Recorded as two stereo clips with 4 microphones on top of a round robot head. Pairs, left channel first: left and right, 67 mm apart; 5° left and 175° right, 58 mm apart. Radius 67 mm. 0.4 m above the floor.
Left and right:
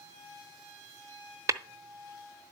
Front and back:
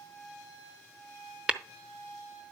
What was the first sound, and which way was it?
Tapping, 105° right.